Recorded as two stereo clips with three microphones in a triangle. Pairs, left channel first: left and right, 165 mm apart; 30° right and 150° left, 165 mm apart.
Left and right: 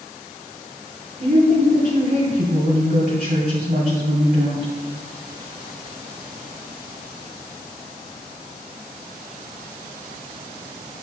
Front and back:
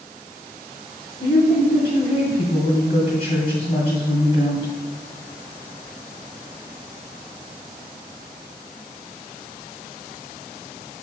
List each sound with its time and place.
1.2 s a woman speaking: 70° right, 1.9 m